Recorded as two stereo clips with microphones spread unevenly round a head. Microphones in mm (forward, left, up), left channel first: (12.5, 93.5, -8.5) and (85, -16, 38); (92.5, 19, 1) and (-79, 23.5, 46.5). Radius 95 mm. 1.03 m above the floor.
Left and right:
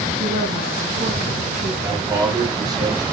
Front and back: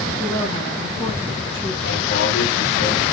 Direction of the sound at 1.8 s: 10° left.